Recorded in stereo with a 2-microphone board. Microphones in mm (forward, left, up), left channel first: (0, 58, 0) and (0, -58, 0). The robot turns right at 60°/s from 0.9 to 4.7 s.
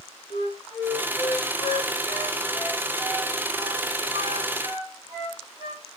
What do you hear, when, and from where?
0.3 s a flute: 55° left (ahead or behind), 2 m; by 5.8 s 65° right (ahead or behind), 2 m